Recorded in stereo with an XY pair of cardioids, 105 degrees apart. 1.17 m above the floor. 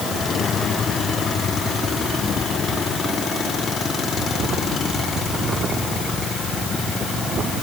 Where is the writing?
I don't hear writing.